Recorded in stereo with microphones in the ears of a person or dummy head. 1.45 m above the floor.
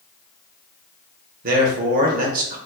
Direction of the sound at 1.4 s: 50° right (ahead or behind).